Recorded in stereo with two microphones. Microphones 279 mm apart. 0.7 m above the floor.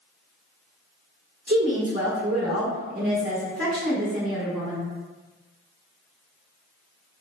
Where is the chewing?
No chewing in this recording.